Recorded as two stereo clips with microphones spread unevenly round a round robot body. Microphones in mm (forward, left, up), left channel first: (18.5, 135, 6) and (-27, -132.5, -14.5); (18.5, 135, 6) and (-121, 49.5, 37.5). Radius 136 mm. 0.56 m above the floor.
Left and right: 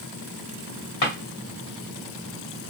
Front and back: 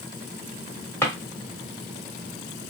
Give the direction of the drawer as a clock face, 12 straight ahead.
9 o'clock.